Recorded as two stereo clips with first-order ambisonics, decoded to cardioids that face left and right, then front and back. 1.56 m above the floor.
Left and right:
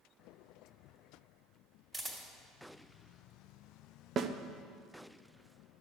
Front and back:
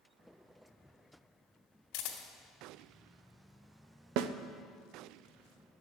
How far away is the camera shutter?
About 2.5 m.